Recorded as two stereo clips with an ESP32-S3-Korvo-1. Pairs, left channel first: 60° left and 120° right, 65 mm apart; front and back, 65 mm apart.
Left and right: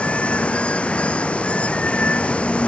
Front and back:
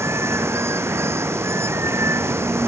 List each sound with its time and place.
0.0 s running water: 130° left